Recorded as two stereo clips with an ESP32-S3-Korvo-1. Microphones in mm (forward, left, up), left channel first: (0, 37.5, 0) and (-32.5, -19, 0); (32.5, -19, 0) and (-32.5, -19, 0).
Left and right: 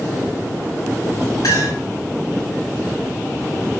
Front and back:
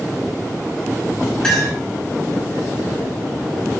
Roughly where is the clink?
Left.